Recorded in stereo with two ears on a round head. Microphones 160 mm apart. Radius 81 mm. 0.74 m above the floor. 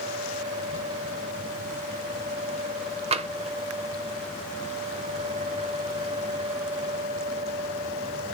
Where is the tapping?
35° right (ahead or behind), 0.8 m.